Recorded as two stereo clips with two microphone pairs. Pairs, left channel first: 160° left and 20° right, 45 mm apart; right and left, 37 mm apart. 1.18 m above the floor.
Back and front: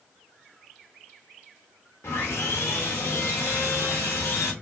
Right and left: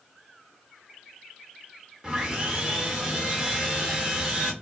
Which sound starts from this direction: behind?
Sawing, at 2.0 s.